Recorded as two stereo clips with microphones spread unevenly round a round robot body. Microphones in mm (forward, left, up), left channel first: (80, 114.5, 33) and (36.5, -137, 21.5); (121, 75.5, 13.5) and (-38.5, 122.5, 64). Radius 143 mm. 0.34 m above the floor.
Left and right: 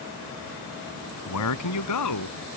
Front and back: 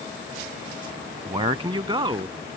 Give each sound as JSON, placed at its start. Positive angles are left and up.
{"t": 1.2, "sound": "a man speaking", "azimuth_deg": 100}